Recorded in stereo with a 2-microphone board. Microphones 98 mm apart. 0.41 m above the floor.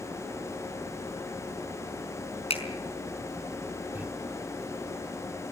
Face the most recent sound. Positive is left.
turn(degrees=-15)  # may be behind; listen again after turning